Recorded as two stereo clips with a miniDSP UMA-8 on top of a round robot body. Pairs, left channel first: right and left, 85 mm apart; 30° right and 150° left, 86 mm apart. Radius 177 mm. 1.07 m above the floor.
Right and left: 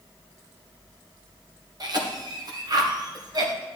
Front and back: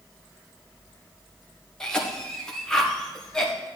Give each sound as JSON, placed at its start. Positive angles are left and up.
{"t": 1.8, "sound": "a cough", "azimuth_deg": 50, "distance_m": 1.8}